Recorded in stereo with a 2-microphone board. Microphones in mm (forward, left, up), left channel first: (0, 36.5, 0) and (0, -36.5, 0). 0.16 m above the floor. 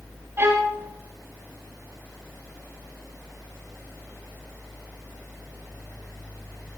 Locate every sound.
0.4 s a violin: 30° right (ahead or behind), 6 m